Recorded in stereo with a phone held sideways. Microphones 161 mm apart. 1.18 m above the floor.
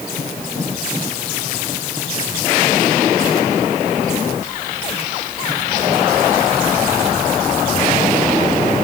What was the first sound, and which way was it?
Only background noise.